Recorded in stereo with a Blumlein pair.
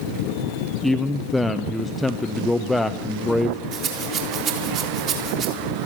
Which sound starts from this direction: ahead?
A man speaking, at 0.8 s.